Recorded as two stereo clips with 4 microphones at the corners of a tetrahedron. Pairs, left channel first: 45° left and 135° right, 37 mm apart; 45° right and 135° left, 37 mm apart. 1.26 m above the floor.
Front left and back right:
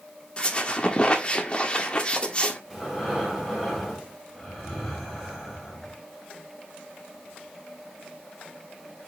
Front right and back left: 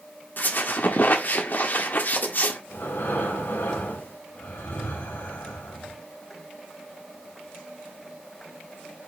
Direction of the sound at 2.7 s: 40° right.